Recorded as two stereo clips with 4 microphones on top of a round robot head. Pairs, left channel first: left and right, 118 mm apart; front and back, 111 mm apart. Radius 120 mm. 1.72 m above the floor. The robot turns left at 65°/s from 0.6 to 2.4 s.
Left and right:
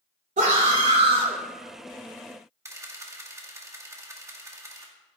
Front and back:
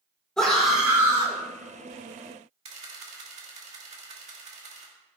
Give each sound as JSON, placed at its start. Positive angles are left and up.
{"t": 0.4, "sound": "a scream", "azimuth_deg": -85, "distance_m": 3.0}
{"t": 2.6, "sound": "a camera shutter", "azimuth_deg": -155, "distance_m": 2.5}